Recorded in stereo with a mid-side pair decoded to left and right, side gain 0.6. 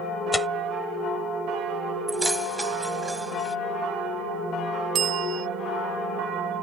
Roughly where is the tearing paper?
Ahead.